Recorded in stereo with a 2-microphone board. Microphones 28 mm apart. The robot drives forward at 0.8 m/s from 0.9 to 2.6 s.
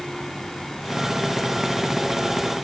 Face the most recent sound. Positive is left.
No sound to turn to.